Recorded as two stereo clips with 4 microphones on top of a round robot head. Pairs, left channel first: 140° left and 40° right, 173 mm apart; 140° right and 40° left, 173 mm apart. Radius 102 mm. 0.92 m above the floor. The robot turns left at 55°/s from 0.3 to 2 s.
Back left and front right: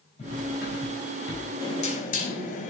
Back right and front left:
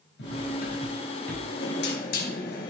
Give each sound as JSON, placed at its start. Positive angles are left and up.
{"t": 0.2, "sound": "cutlery clinking", "azimuth_deg": -165, "distance_m": 4.0}
{"t": 1.6, "sound": "knocking", "azimuth_deg": -155, "distance_m": 3.5}